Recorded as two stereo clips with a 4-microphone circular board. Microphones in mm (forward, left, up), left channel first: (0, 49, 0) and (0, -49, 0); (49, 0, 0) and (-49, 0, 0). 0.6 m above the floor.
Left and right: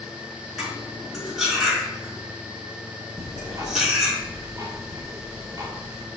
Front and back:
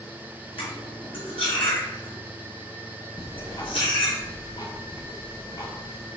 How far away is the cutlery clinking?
About 4.5 m.